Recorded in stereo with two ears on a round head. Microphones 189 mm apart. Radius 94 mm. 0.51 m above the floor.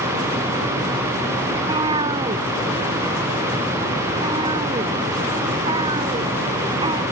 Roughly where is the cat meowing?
Right.